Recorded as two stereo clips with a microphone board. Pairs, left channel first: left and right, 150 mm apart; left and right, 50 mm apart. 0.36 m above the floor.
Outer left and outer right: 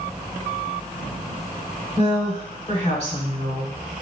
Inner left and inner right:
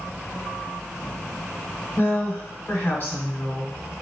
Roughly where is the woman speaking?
Left.